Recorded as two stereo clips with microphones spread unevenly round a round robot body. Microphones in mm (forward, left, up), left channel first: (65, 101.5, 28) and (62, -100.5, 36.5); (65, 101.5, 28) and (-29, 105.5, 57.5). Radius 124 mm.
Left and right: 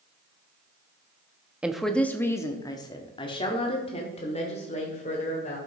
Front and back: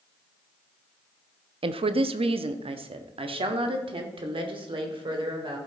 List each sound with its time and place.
1.6 s a woman speaking: 175° right, 0.6 m; by 5.6 s 150° left, 2.5 m